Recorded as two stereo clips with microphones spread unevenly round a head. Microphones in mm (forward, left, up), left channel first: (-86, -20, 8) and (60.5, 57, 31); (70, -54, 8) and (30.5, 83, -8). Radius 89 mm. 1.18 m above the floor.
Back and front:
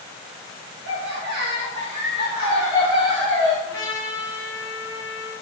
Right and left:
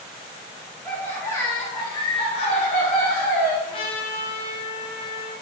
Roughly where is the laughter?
Ahead.